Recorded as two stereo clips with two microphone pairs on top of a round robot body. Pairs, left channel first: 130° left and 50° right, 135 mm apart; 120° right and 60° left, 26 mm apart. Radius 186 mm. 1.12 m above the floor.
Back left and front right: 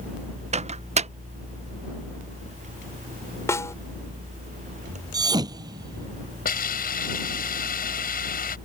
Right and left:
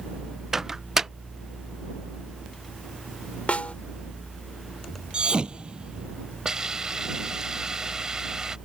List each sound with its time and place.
0.5 s a microwave: 10° right
3.5 s a snare drum: 160° right
5.1 s a thud: 10° left
6.5 s a hiss: 130° left